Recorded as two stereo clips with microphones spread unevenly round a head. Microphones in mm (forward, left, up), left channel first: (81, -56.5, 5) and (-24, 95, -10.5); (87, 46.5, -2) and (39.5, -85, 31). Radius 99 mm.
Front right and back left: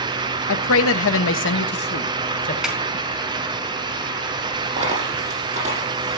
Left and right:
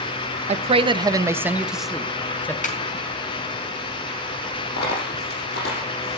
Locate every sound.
0.5 s a man speaking: 70° right, 1.2 m; by 2.5 s 10° right, 1.9 m
2.6 s a snare drum: 35° left, 4.5 m
4.8 s a dropped coin: 70° left, 7 m